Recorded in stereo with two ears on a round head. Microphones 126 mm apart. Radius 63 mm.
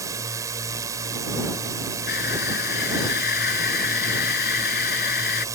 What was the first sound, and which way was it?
A drone, 25° right (ahead or behind).